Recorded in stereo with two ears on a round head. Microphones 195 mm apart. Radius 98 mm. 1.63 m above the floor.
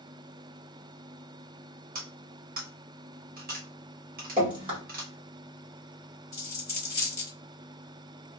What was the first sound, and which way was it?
Cutlery clinking, 45° right (ahead or behind).